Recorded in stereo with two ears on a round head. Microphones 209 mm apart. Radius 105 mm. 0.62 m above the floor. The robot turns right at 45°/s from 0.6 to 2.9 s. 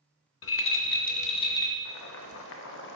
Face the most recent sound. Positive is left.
turn(degrees=120)